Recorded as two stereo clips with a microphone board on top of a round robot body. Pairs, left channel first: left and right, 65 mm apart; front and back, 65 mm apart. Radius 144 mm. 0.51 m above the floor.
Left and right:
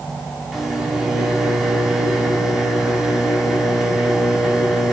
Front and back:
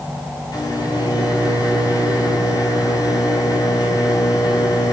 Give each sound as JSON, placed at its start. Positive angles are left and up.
{"t": 0.5, "sound": "a microwave", "azimuth_deg": 0, "distance_m": 5.0}